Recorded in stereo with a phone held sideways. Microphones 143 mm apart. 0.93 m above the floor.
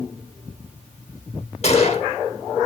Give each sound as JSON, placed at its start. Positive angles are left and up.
{"t": 1.6, "sound": "a gunshot", "side_deg": 50, "distance_m": 1.2}